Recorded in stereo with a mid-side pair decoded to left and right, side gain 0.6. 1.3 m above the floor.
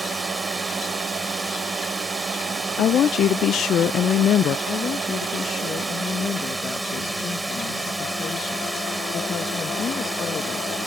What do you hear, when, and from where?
0.0 s a drone: 10° right
2.8 s a woman speaking: 50° left
4.7 s a woman speaking: 45° left